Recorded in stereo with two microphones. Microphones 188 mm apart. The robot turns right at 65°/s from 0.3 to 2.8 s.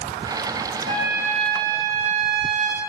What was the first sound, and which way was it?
A trumpet, 40° right.